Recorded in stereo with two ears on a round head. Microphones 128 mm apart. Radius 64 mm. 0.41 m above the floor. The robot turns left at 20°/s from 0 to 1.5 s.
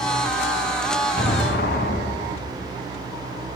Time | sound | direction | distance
1.2 | an explosion | 65° left (ahead or behind) | 1.5 m